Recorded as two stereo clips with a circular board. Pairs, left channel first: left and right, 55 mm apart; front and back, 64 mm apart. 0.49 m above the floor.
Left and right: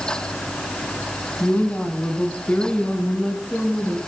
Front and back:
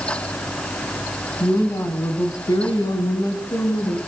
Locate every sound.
1.4 s a woman speaking: 35° left, 3 m; by 4.0 s 10° left, 6 m